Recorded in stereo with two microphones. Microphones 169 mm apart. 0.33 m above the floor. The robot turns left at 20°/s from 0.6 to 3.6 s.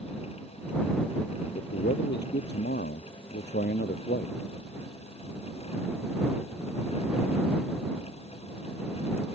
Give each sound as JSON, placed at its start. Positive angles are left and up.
{"t": 1.6, "sound": "a man speaking", "azimuth_deg": 110}